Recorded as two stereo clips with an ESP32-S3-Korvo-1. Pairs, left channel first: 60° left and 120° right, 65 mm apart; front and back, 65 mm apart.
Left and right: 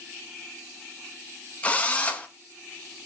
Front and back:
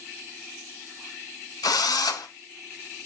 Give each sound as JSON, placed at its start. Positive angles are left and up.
{"t": 1.6, "sound": "a drill", "azimuth_deg": -10, "distance_m": 0.7}